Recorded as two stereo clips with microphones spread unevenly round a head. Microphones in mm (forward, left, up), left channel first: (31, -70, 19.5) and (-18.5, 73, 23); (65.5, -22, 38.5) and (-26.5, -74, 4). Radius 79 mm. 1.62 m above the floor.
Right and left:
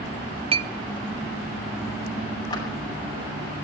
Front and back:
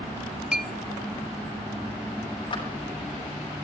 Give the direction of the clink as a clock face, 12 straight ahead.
9 o'clock.